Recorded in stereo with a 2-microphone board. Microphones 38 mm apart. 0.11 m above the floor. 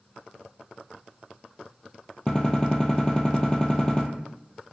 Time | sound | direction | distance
2.3 | a gunshot | 20° left (ahead or behind) | 0.8 m